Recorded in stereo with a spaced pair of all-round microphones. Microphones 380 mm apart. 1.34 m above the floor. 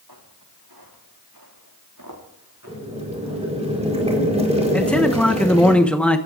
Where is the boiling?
15° right (ahead or behind), 4.5 m.